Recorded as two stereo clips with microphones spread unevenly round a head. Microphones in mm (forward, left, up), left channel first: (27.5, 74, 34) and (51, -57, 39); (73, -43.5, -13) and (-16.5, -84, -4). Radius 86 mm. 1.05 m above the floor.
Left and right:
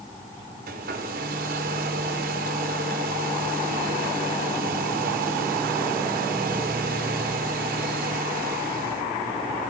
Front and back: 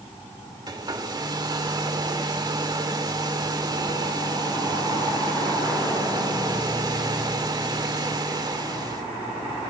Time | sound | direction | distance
0.7 | a hair dryer | 110° right | 2.5 m